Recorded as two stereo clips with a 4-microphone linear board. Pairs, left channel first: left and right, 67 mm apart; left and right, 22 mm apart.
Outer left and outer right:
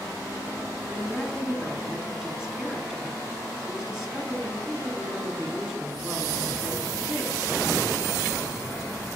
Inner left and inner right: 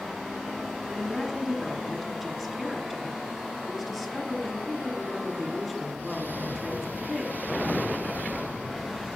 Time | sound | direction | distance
0.9 | a woman speaking | 5° right (ahead or behind) | 1.8 m